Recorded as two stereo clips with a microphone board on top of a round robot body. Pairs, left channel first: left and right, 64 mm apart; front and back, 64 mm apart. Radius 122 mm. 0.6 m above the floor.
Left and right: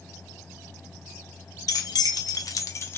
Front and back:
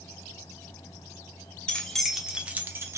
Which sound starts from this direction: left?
Keys jangling, at 1.7 s.